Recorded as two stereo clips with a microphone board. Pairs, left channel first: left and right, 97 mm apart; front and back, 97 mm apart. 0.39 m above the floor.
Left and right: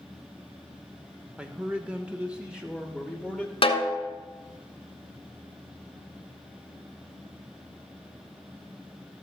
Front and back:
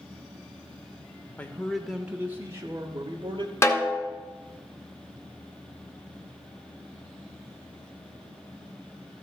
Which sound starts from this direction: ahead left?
A snare drum, at 3.6 s.